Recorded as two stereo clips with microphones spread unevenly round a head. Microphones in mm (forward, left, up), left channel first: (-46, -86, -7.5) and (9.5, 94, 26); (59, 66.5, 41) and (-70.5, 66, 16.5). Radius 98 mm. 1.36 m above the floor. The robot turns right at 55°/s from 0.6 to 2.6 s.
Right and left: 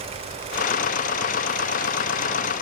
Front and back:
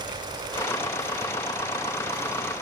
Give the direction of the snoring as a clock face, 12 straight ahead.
I don't hear snoring.